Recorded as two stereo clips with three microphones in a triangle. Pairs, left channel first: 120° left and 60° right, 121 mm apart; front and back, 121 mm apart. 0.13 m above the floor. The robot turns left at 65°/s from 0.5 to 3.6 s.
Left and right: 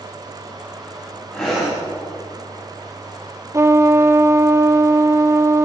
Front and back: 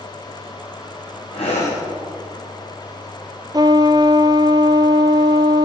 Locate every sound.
1.3 s breathing: 40° left, 5 m; by 1.8 s 10° left, 5 m
3.5 s a trumpet: 120° right, 0.7 m; by 5.7 s 125° right, 0.7 m